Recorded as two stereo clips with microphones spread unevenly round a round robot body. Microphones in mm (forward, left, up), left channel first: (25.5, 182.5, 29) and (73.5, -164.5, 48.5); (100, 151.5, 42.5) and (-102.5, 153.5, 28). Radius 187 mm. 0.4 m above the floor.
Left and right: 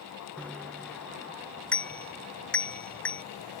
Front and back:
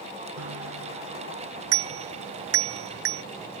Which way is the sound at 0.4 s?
175° right.